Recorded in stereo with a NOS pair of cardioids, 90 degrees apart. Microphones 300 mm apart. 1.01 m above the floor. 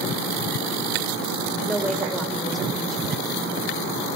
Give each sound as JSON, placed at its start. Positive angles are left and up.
{"t": 1.7, "sound": "a woman speaking", "azimuth_deg": 0, "distance_m": 4.5}